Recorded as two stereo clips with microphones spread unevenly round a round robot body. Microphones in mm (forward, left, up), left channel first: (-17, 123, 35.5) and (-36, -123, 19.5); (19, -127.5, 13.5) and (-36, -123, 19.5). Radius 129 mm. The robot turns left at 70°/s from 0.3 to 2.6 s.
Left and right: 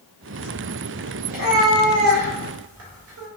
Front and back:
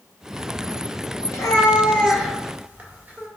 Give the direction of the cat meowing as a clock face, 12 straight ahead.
1 o'clock.